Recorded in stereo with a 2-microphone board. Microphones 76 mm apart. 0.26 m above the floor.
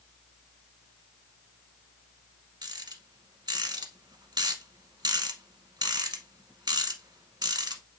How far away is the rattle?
About 1.0 m.